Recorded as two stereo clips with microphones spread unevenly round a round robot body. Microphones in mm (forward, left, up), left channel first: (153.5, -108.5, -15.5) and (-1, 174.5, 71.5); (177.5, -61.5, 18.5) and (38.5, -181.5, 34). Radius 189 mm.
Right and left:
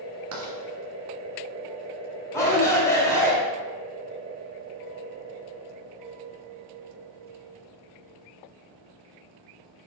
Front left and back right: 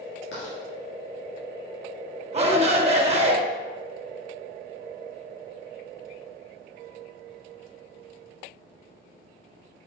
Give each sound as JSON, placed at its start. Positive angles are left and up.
{"t": 0.3, "sound": "writing", "azimuth_deg": 90, "distance_m": 2.0}
{"t": 2.3, "sound": "a shout", "azimuth_deg": -110, "distance_m": 1.4}